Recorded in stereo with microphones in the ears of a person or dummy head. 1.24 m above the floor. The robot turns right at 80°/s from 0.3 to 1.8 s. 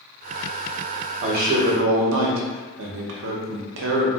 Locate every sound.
1.2 s a man speaking: 145° right, 0.8 m; by 4.1 s 95° right, 0.8 m